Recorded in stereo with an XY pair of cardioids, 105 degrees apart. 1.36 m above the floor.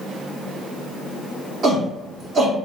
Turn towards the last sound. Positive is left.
turn(degrees=-55)